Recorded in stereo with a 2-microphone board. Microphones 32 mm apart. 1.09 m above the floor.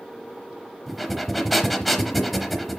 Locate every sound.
0.9 s breathing: centre (ahead or behind), 1.0 m